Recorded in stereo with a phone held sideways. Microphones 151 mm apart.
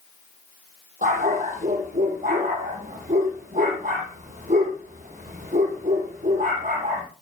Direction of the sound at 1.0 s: 65° right (ahead or behind).